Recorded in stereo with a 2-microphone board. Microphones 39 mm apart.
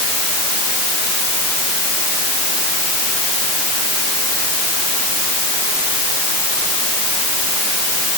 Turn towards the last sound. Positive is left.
No sound to turn to.